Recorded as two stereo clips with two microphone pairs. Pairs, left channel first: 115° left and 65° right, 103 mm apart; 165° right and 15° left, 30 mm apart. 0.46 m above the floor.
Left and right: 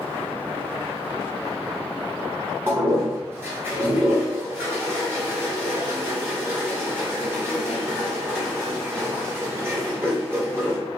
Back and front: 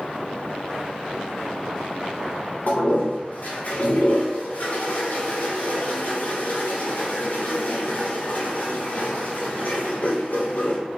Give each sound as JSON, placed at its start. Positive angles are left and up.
{"t": 2.7, "sound": "a toilet flushing", "azimuth_deg": -135, "distance_m": 1.2}